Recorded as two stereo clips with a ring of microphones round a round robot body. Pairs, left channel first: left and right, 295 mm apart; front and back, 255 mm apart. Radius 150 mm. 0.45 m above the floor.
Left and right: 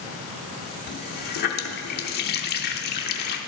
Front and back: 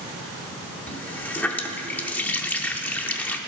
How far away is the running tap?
About 0.6 m.